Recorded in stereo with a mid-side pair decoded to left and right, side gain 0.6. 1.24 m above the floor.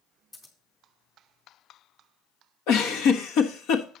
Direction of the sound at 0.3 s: 20° left.